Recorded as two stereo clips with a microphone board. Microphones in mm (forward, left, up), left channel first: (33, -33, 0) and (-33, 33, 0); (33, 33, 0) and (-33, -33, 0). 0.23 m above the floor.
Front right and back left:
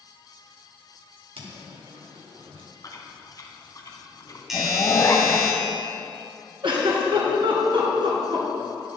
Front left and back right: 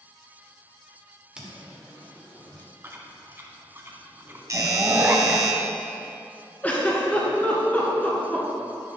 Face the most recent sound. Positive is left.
turn(degrees=115)